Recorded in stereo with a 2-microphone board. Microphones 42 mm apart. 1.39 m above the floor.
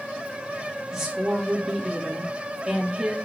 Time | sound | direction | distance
0.9 | a woman speaking | 15° right (ahead or behind) | 2 m